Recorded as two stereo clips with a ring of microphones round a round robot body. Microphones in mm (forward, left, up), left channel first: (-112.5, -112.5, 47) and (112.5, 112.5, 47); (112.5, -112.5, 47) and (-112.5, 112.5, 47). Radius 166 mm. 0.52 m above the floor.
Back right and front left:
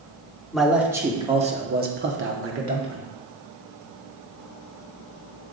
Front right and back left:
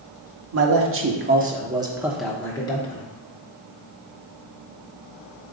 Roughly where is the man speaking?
Behind left.